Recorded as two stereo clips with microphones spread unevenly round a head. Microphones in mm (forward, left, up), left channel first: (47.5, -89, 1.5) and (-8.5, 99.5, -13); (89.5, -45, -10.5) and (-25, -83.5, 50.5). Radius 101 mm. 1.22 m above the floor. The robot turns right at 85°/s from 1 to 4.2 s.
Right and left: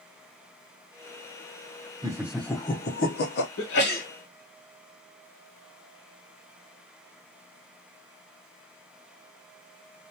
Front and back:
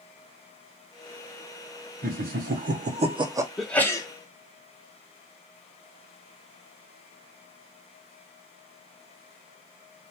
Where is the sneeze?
65° right, 1.0 m; by 4.1 s 20° right, 1.0 m.